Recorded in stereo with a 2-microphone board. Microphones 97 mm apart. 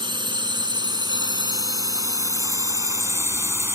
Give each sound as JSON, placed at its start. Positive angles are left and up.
{"t": 0.0, "sound": "a drone", "side_deg": -55}